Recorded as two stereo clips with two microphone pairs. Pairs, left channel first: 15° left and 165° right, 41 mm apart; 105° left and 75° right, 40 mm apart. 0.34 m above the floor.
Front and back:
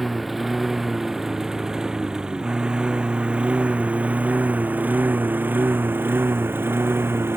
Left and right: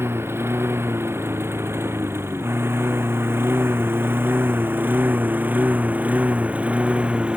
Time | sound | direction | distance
0.0 | a lawn mower | 75° right | ?